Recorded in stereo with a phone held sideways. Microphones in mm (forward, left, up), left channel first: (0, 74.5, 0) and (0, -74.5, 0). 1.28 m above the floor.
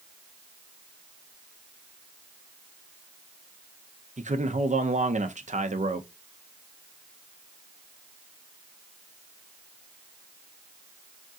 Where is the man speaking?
55° right (ahead or behind), 0.7 m.